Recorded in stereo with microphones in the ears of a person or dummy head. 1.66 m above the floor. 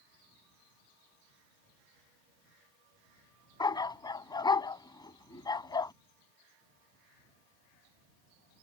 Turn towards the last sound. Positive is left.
turn(degrees=20)  # may be behind; listen again after turning